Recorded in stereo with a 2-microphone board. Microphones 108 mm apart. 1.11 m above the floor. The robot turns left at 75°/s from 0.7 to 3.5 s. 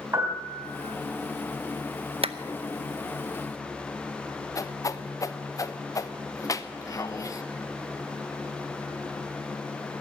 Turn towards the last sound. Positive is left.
turn(degrees=30)  # may be behind; listen again after turning